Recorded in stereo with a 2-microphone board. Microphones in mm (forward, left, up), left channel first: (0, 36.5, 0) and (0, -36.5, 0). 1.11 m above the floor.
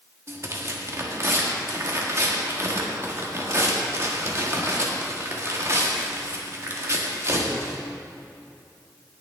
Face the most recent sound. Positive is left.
turn(degrees=-40)  # may be behind; listen again after turning